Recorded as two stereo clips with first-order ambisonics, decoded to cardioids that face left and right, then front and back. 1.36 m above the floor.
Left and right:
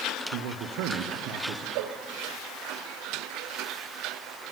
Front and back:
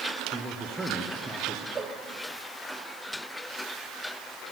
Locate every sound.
0.3 s a man speaking: 100° right, 0.9 m
1.8 s a cowbell: 110° right, 0.6 m